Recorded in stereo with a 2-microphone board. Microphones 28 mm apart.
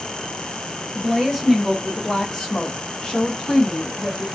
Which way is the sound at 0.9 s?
10° right (ahead or behind).